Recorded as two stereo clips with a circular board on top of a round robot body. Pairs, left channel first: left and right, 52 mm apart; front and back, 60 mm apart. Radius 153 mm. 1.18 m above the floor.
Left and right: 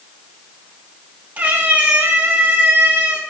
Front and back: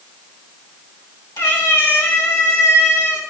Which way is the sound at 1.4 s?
35° right.